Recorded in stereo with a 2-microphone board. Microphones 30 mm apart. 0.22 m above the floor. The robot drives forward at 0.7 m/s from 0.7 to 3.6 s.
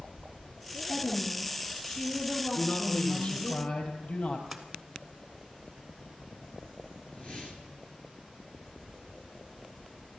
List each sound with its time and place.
0.9 s a woman speaking: 35° left (ahead or behind), 4 m; by 3.5 s 25° left (ahead or behind), 5.5 m
2.5 s a man speaking: 60° left (ahead or behind), 5 m; by 4.4 s 70° left (ahead or behind), 4.5 m
4.5 s a splash: 5° right (ahead or behind), 1.6 m
7.1 s a whoosh: 40° left (ahead or behind), 2.5 m